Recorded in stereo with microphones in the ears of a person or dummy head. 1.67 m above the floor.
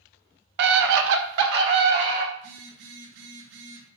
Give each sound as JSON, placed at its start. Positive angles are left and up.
{"t": 0.6, "sound": "a scream", "side_deg": -60, "distance_m": 1.4}
{"t": 2.4, "sound": "a phone buzzing", "side_deg": -70, "distance_m": 2.5}